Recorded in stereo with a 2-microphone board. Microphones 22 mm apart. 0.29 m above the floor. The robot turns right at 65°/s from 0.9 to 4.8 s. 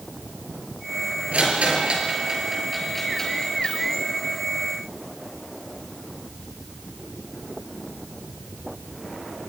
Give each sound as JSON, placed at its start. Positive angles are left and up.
{"t": 1.3, "sound": "a rattle", "side_deg": -75, "distance_m": 5.5}